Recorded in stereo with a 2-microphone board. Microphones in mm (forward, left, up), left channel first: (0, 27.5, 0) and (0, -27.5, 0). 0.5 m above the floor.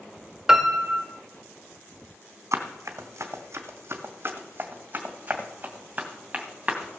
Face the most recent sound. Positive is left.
turn(degrees=-10)  # may be behind; listen again after turning